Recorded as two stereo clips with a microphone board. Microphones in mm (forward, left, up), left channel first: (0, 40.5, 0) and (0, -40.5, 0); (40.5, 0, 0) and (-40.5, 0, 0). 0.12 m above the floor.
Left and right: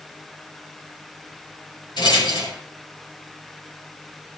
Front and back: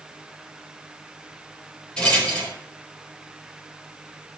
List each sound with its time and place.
2.0 s a rattle: 75° left, 4.5 m